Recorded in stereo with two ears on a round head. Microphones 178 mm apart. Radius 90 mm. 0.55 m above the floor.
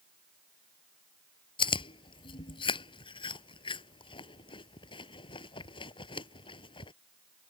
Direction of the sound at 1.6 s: 25° left (ahead or behind).